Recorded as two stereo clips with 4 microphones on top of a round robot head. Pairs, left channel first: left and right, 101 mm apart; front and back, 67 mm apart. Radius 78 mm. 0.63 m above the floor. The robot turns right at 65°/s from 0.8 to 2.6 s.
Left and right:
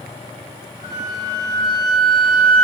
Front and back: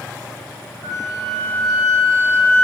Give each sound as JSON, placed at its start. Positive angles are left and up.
{"t": 0.8, "sound": "a flute", "azimuth_deg": 30, "distance_m": 2.0}